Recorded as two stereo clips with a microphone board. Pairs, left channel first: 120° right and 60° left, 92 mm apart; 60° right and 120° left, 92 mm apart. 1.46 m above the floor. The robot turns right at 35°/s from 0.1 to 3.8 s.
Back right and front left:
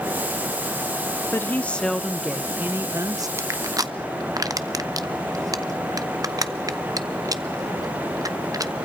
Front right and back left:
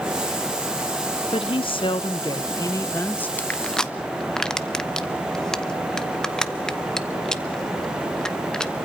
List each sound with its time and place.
1.3 s a woman speaking: 55° right, 0.7 m; by 3.3 s 15° left, 0.7 m
3.4 s crushing: 5° left, 0.7 m; by 8.7 s 20° left, 0.7 m